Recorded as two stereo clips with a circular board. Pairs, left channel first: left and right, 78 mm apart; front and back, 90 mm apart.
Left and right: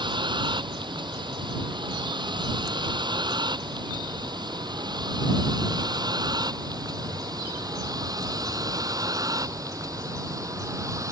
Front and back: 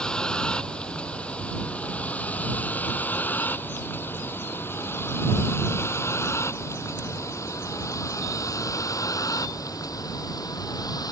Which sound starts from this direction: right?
A vehicle, at 0.0 s.